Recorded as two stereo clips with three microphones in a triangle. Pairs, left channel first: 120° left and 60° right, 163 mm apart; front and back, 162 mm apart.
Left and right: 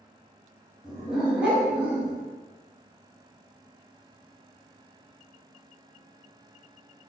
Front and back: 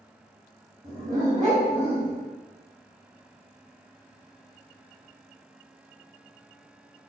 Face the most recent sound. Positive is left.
turn(degrees=-135)